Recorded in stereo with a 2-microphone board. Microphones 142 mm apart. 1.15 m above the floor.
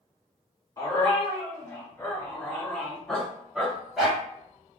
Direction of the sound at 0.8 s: 25° left (ahead or behind).